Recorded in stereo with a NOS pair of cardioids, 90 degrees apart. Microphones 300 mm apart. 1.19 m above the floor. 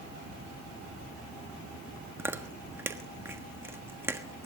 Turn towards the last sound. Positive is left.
turn(degrees=-10)